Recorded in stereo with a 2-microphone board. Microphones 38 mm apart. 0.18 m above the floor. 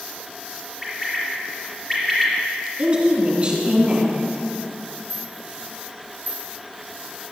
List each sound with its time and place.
0.8 s a bird: centre (ahead or behind), 3.5 m
2.8 s a woman speaking: 30° right (ahead or behind), 2 m
5.1 s a rattle: 35° right (ahead or behind), 3.5 m